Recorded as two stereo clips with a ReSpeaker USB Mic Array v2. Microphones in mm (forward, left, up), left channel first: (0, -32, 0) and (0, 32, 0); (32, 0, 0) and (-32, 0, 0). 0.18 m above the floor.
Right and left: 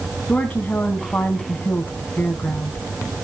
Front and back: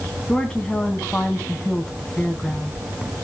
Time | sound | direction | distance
0.3 | a woman speaking | 60° right | 1.1 m